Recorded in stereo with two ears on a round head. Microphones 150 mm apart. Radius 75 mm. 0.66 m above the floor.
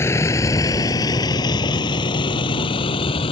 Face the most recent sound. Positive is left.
turn(degrees=30)  # may be behind; listen again after turning